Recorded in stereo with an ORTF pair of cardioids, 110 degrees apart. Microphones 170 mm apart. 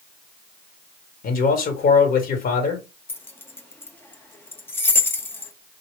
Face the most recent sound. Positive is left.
turn(degrees=15)